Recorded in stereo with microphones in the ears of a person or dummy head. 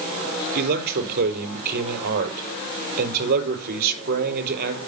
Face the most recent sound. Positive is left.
turn(degrees=-55)  # may be behind; listen again after turning